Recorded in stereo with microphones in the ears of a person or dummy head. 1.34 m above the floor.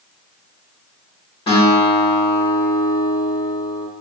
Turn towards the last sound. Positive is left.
turn(degrees=20)  # may be behind; listen again after turning